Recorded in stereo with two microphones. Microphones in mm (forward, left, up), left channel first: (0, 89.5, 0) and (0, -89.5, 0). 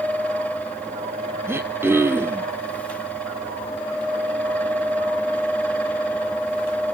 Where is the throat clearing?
15° right (ahead or behind), 1.2 m.